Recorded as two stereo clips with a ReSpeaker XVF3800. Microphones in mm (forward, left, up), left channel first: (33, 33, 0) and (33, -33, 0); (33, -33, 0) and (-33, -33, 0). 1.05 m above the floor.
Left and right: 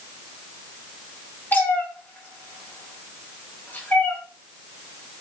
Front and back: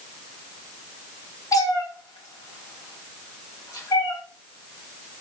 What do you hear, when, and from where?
1.5 s a cat meowing: 25° left, 0.9 m